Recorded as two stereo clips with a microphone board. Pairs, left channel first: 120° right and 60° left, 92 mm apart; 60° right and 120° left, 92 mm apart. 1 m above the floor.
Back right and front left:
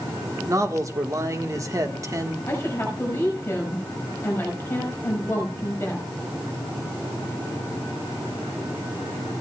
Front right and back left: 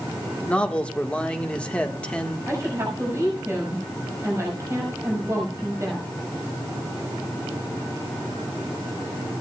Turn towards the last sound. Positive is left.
turn(degrees=175)